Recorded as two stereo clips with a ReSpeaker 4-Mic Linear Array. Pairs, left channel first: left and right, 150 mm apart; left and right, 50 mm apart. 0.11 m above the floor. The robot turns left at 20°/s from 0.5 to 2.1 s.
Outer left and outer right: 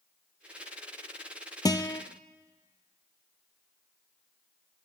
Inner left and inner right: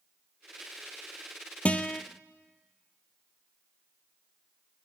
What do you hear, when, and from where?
1.6 s a guitar: 25° left (ahead or behind), 0.7 m; by 2.0 s 35° left (ahead or behind), 0.7 m